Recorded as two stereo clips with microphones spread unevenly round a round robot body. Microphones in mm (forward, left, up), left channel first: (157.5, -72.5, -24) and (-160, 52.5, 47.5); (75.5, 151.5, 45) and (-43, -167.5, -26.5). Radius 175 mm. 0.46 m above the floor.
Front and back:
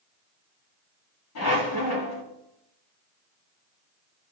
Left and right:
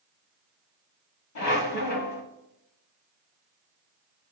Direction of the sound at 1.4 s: 25° left.